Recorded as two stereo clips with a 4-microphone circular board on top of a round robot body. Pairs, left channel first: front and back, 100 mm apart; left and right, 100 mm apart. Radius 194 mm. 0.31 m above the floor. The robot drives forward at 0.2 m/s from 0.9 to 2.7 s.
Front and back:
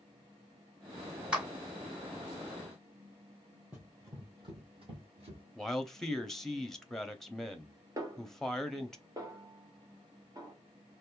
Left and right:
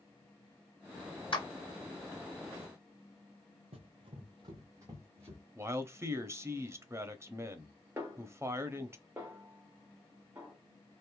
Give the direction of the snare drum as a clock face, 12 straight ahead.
5 o'clock.